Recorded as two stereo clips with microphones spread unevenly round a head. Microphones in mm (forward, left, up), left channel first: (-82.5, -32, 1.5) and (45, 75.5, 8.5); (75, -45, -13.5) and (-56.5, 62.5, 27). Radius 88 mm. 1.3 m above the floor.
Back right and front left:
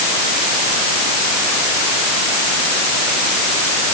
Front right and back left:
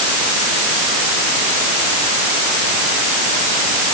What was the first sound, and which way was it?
Only background noise.